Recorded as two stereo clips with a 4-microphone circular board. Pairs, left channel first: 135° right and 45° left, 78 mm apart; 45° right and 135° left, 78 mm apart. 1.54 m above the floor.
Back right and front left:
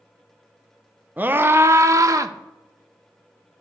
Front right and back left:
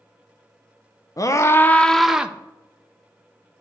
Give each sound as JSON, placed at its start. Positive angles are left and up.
{"t": 1.2, "sound": "a scream", "azimuth_deg": -15, "distance_m": 0.6}